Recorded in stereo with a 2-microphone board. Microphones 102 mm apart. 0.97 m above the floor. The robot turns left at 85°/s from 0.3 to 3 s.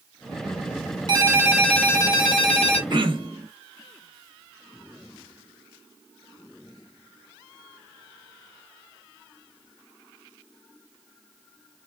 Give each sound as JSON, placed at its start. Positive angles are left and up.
{"t": 1.1, "sound": "a ringtone", "azimuth_deg": -135, "distance_m": 1.2}
{"t": 2.9, "sound": "throat clearing", "side_deg": -45, "distance_m": 0.9}